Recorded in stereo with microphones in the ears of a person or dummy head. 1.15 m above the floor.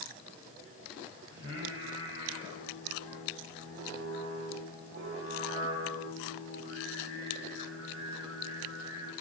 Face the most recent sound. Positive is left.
turn(degrees=-65)  # may be behind; listen again after turning